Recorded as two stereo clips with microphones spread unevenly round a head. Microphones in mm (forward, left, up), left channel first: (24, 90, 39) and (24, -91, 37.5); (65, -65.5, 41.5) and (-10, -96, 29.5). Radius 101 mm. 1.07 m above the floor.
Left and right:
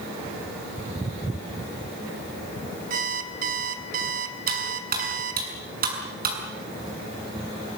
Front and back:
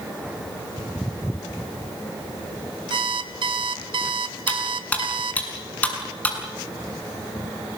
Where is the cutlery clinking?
50° right, 6.5 m.